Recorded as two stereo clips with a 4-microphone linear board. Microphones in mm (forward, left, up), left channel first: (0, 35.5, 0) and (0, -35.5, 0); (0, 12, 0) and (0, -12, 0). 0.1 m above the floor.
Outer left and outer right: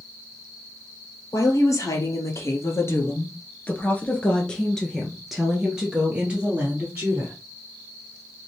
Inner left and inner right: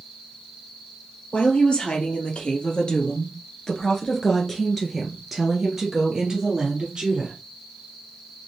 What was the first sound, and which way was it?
A woman speaking, 55° left (ahead or behind).